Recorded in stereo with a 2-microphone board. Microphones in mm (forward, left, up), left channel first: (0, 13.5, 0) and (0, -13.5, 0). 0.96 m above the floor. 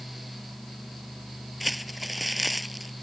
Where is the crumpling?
Centre (ahead or behind).